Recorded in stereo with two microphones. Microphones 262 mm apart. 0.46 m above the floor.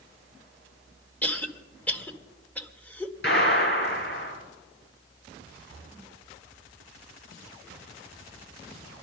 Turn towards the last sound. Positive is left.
turn(degrees=30)  # may be behind; listen again after turning